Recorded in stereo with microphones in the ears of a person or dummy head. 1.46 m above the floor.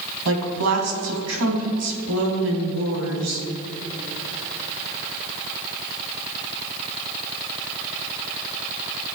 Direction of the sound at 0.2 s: 85° right.